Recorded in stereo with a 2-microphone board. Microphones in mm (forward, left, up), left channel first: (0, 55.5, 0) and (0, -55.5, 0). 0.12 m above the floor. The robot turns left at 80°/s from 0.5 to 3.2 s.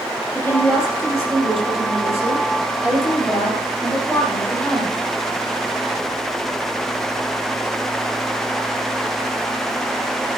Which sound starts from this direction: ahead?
A woman speaking, at 0.3 s.